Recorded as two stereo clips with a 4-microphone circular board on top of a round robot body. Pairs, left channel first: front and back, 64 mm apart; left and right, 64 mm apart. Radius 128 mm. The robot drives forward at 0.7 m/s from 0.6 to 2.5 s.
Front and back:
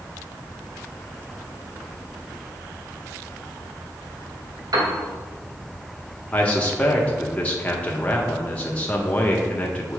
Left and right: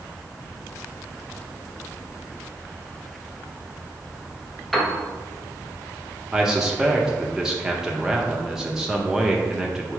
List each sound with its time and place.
4.7 s a piano: straight behind, 1.6 m
6.3 s a man speaking: 25° right, 1.1 m